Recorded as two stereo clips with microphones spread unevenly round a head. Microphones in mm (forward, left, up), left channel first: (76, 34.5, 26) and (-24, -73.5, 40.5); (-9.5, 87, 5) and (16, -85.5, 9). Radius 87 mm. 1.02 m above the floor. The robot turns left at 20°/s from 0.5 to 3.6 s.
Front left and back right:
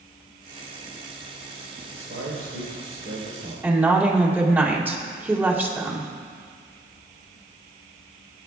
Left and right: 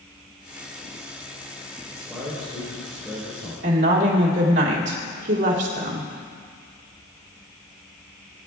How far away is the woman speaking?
About 2.5 m.